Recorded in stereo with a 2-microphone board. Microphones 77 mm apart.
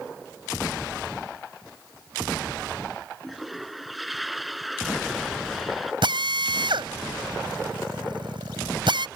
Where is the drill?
80° right.